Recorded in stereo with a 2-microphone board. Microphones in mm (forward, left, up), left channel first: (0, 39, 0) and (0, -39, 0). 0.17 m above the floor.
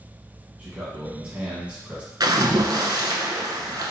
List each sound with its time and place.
0.6 s a man speaking: 15° right (ahead or behind), 1.4 m
2.2 s a splash: 60° right (ahead or behind), 0.7 m